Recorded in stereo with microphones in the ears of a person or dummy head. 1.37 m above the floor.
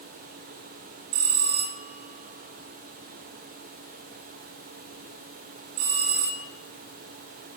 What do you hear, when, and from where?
1.1 s a bell: 50° right (ahead or behind), 1.3 m